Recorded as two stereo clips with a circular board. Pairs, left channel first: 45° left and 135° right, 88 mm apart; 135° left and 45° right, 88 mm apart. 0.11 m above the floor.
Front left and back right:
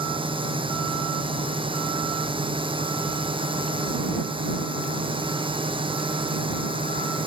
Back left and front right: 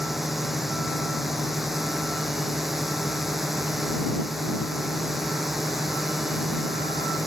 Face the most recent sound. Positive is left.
turn(degrees=-135)